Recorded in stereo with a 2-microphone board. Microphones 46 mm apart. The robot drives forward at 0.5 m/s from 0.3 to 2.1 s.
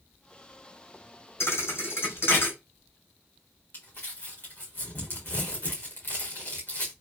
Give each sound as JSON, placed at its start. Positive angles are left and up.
{"t": 1.4, "sound": "a thud", "side_deg": 70, "distance_m": 1.5}
{"t": 3.7, "sound": "crumpling", "side_deg": 50, "distance_m": 3.0}